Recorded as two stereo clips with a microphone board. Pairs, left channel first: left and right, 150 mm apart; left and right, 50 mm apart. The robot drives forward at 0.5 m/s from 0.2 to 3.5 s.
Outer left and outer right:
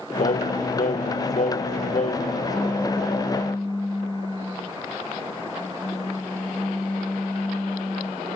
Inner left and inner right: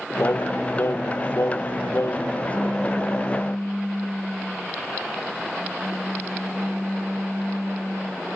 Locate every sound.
0.2 s singing: 60° left (ahead or behind); by 2.4 s 55° left (ahead or behind)
2.5 s a pop: 5° left (ahead or behind)